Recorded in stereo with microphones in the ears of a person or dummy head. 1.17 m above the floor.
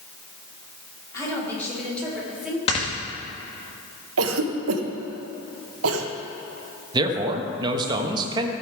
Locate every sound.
1.1 s a woman speaking: 20° left (ahead or behind), 4 m; by 2.6 s 5° right (ahead or behind), 3.5 m
2.7 s snoring: 35° left (ahead or behind), 1.5 m
4.2 s a cough: 75° right (ahead or behind), 1.2 m
6.9 s a man speaking: 25° right (ahead or behind), 1.2 m